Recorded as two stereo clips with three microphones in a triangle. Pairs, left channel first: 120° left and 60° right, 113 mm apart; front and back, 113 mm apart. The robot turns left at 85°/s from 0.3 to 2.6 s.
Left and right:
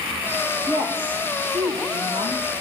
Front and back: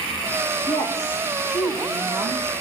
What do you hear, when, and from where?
0.7 s a woman speaking: 15° left, 6.5 m; by 2.5 s 140° right, 6.5 m